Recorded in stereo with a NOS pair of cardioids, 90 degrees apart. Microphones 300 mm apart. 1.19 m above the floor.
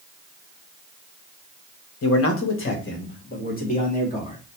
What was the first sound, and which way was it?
A man speaking, 55° left.